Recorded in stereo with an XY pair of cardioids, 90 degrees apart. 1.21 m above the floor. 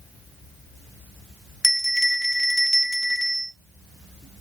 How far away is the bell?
About 0.9 m.